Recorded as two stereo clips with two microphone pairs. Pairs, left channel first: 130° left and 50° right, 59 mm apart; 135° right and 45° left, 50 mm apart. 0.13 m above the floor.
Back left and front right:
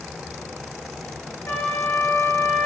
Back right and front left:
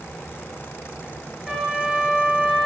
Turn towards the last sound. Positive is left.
turn(degrees=135)